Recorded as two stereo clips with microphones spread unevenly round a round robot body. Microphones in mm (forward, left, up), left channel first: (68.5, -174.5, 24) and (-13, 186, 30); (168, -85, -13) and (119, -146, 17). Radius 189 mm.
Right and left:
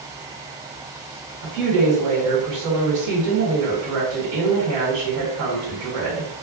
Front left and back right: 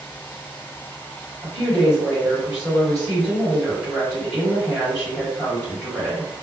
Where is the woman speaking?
120° left, 1.6 m.